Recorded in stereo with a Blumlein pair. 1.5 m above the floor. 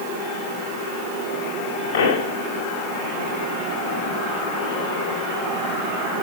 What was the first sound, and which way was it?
A pop, 55° left.